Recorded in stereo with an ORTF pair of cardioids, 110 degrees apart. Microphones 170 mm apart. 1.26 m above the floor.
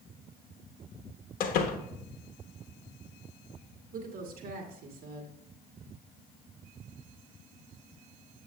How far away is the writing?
I don't hear writing.